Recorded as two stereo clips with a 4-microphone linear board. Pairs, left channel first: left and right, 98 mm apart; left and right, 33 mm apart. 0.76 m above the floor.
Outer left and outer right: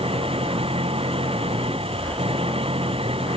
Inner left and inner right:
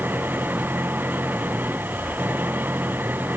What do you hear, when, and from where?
0.0 s an engine running: 70° right (ahead or behind)